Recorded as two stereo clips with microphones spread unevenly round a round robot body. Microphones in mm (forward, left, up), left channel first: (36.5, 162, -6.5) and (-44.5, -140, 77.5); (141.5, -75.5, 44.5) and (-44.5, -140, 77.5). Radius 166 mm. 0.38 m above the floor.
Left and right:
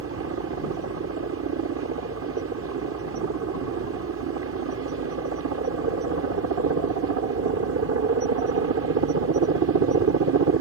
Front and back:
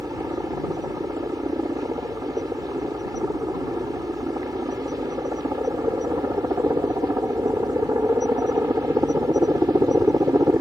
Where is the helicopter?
90° right.